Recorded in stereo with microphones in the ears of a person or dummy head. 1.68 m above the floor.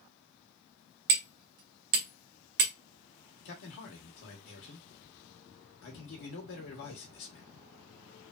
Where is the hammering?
50° right (ahead or behind), 1.0 m.